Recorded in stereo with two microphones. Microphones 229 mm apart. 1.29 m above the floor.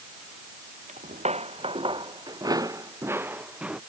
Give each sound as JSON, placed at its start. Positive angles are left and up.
{"t": 0.9, "sound": "footsteps", "side_deg": -35}